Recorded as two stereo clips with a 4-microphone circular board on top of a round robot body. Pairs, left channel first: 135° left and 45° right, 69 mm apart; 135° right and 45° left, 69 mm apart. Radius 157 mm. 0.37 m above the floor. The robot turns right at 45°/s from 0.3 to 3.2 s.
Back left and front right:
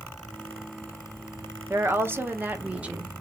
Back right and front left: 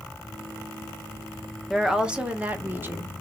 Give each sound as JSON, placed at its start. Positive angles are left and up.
{"t": 1.7, "sound": "a woman speaking", "azimuth_deg": -40, "distance_m": 0.9}